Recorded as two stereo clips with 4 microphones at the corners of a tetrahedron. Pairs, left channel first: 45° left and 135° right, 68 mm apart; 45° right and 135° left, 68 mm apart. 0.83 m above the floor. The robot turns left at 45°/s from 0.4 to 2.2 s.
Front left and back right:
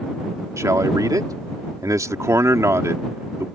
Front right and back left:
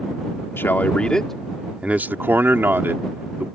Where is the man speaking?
100° right; by 3.5 s 170° right.